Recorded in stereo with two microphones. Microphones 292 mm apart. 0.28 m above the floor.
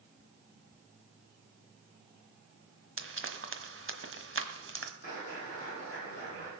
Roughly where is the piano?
No piano in this recording.